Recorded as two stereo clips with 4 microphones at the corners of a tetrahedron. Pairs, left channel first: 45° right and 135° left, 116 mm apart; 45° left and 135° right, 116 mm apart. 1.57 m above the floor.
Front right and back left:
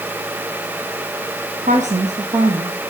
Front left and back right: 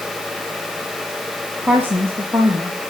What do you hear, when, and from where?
1.6 s a woman speaking: 150° left, 2 m; by 2.8 s 155° left, 3.5 m